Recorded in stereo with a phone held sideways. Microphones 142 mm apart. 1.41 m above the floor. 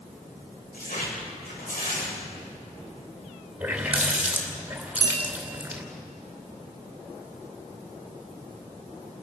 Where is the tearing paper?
90° left, 6.5 m.